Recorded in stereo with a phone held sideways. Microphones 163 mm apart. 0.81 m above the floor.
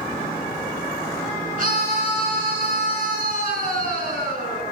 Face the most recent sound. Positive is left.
turn(degrees=-60)  # may be behind; listen again after turning